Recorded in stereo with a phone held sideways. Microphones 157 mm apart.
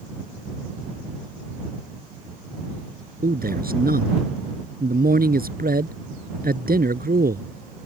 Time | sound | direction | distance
3.2 | a man speaking | 85° right | ?